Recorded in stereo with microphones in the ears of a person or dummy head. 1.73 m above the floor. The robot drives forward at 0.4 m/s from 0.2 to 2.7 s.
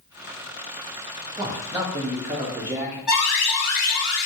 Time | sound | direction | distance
1.4 | a man speaking | 20° right (ahead or behind) | 0.7 m
3.1 | an alarm | centre (ahead or behind) | 0.9 m